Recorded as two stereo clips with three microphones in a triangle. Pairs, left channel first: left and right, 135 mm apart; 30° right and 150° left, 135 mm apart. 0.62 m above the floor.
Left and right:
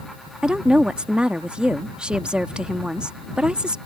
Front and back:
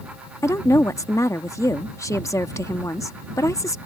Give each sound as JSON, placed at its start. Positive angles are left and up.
{"t": 0.4, "sound": "a woman speaking", "azimuth_deg": -20}